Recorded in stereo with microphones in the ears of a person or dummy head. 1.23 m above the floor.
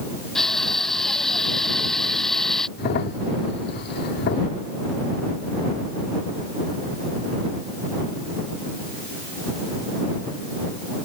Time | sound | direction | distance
0.3 | crushing | centre (ahead or behind) | ?
2.8 | a crack | 45° left (ahead or behind) | ?